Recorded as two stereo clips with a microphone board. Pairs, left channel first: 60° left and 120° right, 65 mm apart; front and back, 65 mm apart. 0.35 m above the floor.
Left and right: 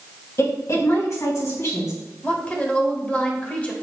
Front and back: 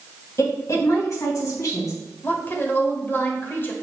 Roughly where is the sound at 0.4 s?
Ahead left.